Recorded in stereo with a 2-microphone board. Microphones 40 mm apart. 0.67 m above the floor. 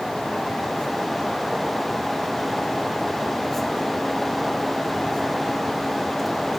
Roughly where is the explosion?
No explosion in this recording.